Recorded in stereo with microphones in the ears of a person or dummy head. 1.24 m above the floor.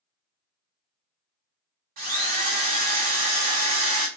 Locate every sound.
2.0 s a drill: 50° right (ahead or behind), 0.8 m